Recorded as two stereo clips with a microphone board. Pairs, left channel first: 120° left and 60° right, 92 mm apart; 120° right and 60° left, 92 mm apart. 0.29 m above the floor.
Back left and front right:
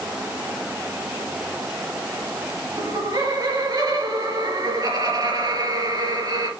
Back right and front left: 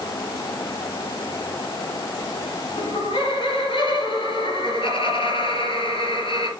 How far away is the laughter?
About 4.5 m.